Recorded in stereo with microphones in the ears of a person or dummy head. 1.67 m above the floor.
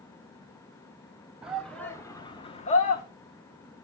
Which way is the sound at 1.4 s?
5° right (ahead or behind).